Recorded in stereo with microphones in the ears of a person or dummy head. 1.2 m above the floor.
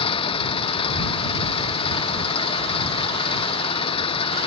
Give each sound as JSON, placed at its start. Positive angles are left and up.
{"t": 0.0, "sound": "an engine running", "side_deg": 25}